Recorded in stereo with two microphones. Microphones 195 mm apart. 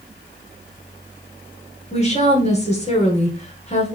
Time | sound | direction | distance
1.9 | a woman speaking | 35° left (ahead or behind) | 1.5 m